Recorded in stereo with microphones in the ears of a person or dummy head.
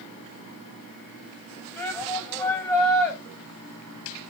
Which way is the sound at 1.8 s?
15° left (ahead or behind).